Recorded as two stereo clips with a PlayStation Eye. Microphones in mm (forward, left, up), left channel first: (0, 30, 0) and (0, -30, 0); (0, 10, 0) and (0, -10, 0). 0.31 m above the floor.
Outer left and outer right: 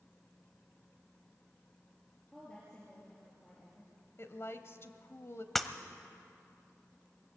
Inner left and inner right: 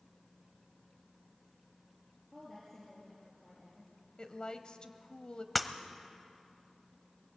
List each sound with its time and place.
2.3 s a woman speaking: 15° left (ahead or behind), 5 m
4.2 s a woman speaking: 45° left (ahead or behind), 1.2 m
5.5 s breaking glass: centre (ahead or behind), 0.8 m